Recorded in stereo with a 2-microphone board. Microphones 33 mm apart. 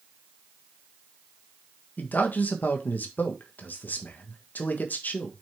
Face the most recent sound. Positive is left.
turn(degrees=70)  # may be behind; listen again after turning